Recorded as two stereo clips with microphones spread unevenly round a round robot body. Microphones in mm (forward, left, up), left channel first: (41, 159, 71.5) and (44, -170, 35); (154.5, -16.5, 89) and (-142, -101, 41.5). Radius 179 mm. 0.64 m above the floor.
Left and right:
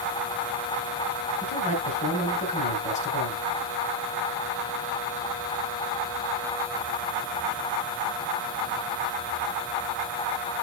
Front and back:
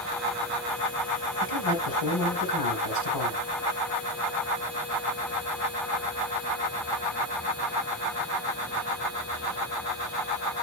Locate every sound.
1.4 s a man speaking: 20° left, 5 m